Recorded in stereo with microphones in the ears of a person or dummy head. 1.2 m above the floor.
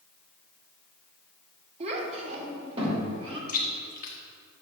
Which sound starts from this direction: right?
A child speaking, at 1.8 s.